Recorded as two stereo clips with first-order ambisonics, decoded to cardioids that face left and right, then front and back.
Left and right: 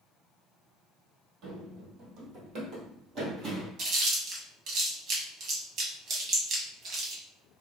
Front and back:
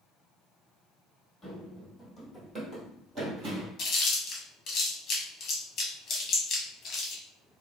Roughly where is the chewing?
Ahead right.